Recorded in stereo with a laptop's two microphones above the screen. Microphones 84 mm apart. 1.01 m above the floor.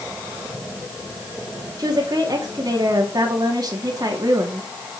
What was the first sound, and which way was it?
A woman speaking, 50° right (ahead or behind).